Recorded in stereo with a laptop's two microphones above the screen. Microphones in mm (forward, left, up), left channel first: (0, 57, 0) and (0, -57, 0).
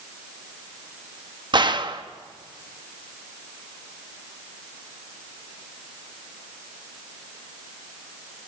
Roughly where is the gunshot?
Right.